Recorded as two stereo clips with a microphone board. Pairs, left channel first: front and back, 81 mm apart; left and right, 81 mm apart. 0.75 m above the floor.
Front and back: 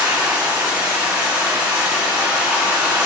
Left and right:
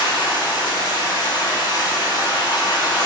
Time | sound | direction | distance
0.0 | running water | 105° left | 1.8 m